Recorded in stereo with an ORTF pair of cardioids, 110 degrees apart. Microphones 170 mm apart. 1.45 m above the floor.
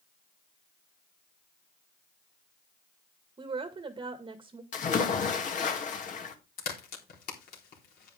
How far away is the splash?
About 2.5 m.